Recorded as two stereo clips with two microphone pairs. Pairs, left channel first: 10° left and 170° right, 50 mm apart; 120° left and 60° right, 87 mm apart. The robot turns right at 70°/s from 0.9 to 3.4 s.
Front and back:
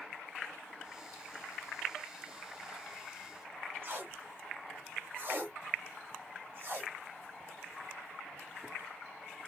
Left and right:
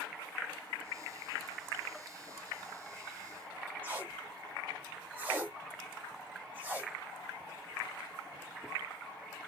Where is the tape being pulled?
130° right, 1.5 m.